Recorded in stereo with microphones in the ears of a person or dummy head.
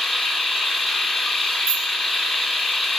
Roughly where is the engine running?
Centre.